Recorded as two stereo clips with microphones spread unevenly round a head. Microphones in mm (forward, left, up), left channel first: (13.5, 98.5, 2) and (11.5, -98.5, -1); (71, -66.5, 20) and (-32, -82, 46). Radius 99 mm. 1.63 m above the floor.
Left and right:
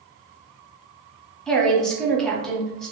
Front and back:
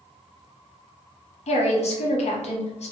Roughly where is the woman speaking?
Ahead.